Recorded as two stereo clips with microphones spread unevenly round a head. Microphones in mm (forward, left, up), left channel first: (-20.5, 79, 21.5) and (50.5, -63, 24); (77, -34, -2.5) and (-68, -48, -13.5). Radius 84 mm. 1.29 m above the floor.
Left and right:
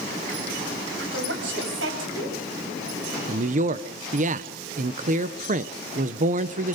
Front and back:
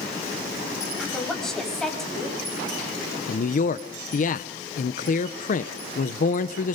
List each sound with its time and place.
1.0 s a woman speaking: 80° right, 7.5 m
3.3 s a man speaking: 25° right, 0.8 m